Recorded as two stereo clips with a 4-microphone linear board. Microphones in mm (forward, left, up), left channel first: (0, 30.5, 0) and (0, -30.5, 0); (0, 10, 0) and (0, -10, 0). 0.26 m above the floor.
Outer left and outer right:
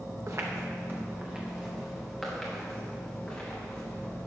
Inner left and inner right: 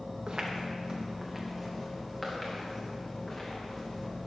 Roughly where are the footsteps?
Right.